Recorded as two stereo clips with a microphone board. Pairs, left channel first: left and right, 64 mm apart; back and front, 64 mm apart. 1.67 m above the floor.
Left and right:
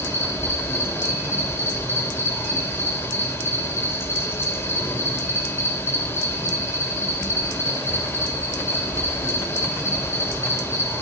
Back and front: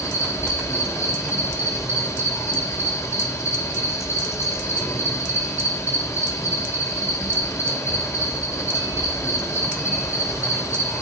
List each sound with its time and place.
0.0 s an insect: 140° left, 4.5 m